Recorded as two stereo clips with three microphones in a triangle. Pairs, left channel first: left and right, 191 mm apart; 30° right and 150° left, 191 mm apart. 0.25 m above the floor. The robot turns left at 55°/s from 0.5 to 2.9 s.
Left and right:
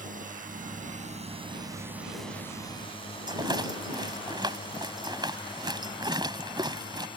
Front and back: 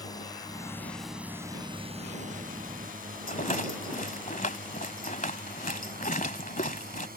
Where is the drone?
90° right; by 7.2 s 145° left.